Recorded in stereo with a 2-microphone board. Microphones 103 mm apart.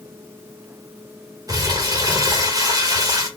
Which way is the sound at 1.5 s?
40° right (ahead or behind).